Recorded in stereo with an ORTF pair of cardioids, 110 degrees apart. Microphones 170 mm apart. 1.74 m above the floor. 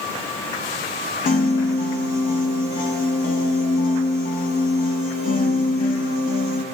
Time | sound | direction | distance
1.2 | a piano | 65° left | 2 m